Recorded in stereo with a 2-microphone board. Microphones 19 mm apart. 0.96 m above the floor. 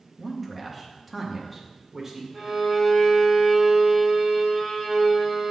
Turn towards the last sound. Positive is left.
turn(degrees=-10)  # may be behind; listen again after turning